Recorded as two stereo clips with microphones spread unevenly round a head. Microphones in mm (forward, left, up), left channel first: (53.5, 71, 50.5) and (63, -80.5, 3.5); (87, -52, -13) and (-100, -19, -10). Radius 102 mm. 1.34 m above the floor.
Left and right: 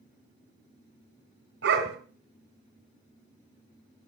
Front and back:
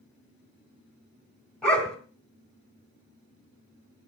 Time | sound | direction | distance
1.6 | a dog barking | 95° right | 3 m